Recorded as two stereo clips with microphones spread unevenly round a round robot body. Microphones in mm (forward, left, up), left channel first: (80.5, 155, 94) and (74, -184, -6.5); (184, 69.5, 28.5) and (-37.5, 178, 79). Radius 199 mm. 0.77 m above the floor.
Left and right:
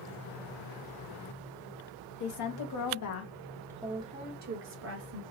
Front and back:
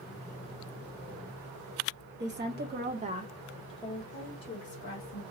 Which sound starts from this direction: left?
A woman speaking, at 2.2 s.